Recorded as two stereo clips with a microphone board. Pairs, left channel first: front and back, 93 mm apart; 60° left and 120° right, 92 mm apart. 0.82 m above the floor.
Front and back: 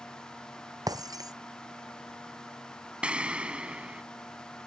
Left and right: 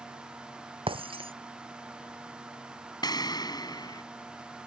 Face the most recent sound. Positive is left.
turn(degrees=100)